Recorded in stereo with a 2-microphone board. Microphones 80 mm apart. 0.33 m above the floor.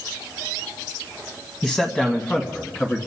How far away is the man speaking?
About 1.8 m.